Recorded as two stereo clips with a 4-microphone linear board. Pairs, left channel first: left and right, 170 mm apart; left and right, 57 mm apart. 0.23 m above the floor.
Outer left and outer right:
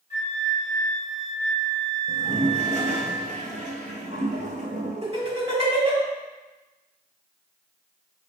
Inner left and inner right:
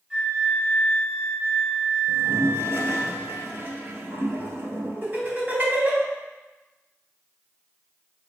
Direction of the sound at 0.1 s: 20° right (ahead or behind).